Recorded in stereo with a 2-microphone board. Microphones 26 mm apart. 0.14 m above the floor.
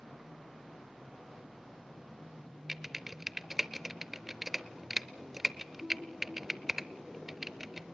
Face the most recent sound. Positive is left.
turn(degrees=-10)  # may be behind; listen again after turning